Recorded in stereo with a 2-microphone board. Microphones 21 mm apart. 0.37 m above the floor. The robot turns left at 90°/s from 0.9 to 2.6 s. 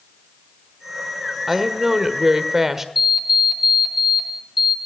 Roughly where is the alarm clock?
Centre.